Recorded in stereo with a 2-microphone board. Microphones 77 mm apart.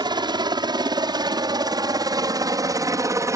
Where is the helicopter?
70° right (ahead or behind); by 3.4 s 40° right (ahead or behind).